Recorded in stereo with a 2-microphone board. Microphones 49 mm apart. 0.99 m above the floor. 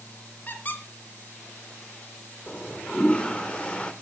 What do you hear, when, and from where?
0.5 s a squeak: 35° left (ahead or behind), 2.5 m
2.5 s a toilet flushing: 20° left (ahead or behind), 1.0 m